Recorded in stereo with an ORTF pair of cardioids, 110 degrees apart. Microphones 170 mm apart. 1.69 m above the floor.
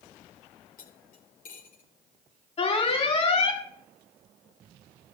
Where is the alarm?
35° left, 4.5 m.